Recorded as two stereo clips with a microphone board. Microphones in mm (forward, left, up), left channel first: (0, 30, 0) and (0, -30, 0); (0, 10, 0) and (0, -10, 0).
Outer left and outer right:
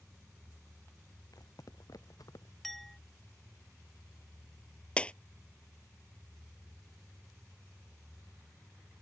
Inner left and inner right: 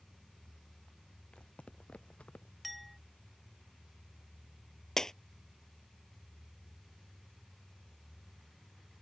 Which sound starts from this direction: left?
Footsteps, at 1.3 s.